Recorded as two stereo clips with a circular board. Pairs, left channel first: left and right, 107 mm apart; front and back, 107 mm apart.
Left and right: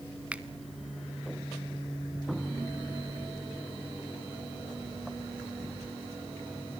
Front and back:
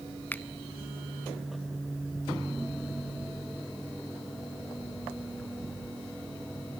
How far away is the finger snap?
About 0.9 m.